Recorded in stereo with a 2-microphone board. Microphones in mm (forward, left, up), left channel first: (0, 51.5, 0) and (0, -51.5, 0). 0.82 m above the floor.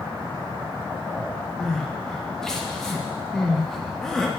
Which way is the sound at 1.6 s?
5° left (ahead or behind).